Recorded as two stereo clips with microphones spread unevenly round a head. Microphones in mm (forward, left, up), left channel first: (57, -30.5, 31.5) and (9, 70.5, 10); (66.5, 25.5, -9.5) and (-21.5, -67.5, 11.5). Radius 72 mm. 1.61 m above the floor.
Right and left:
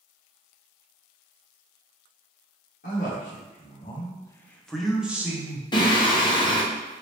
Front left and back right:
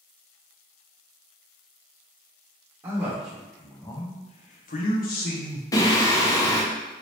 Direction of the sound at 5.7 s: 20° right.